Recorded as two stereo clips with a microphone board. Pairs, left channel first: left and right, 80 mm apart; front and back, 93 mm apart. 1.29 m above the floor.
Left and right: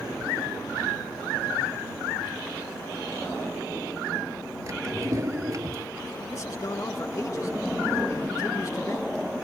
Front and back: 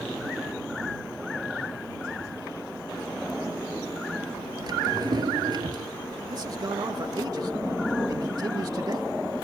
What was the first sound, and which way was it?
A drawer, 140° right.